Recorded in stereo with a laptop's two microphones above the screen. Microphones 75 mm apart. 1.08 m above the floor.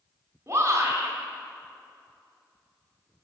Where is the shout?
40° right (ahead or behind), 3.5 m.